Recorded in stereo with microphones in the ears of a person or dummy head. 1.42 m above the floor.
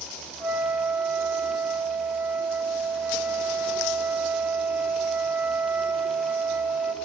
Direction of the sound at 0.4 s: 10° right (ahead or behind).